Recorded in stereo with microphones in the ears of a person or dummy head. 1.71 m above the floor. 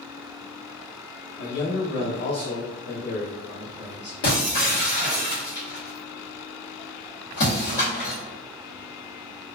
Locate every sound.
1.4 s a man speaking: 65° left (ahead or behind), 0.8 m; by 4.1 s 20° left (ahead or behind), 1.5 m
4.2 s breaking glass: 40° left (ahead or behind), 1.1 m